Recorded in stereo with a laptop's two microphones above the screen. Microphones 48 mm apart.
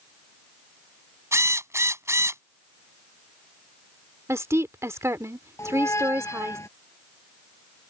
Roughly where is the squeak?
Left.